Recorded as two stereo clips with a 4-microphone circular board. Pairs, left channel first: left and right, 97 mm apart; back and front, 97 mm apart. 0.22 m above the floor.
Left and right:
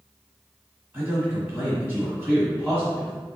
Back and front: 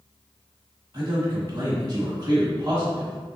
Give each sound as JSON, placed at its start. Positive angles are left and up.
{"t": 0.9, "sound": "a man speaking", "azimuth_deg": -20, "distance_m": 1.3}